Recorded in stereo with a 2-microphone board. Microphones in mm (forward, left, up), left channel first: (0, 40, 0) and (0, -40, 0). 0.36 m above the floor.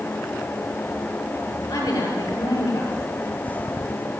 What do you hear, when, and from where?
1.7 s a woman speaking: 45° left (ahead or behind), 8 m